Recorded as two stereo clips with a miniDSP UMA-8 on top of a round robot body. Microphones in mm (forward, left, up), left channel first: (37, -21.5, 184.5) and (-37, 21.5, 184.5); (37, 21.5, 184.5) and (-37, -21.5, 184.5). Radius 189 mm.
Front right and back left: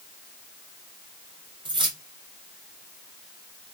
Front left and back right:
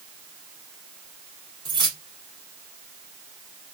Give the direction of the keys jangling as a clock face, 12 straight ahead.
6 o'clock.